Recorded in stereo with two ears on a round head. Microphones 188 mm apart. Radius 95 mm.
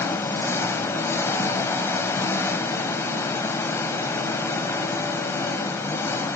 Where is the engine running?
15° left (ahead or behind), 0.8 m.